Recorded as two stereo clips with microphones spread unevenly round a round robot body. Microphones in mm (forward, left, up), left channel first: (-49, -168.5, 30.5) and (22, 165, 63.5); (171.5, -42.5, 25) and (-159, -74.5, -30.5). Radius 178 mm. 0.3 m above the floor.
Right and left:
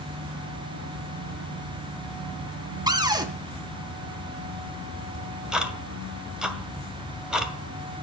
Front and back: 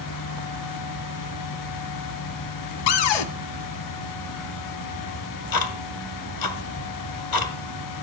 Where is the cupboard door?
5° right, 1.7 m.